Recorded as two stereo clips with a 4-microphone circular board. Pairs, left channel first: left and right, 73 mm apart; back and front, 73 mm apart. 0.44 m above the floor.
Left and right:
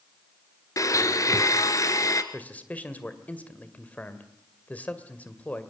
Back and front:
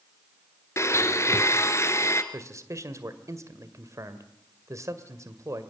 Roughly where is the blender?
Behind left.